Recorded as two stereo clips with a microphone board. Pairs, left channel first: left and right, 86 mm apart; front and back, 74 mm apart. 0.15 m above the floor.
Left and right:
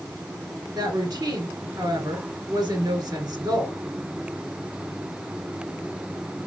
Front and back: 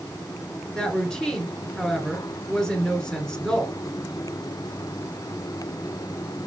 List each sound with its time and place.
0.8 s a woman speaking: 80° right, 2 m